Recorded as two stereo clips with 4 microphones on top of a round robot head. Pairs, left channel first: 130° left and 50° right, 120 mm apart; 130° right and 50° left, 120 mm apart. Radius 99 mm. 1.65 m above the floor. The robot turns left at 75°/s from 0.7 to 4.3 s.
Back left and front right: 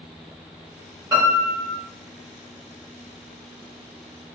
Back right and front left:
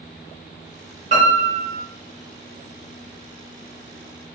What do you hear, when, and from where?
1.1 s a piano: 15° left, 1.0 m; by 1.8 s 35° right, 1.0 m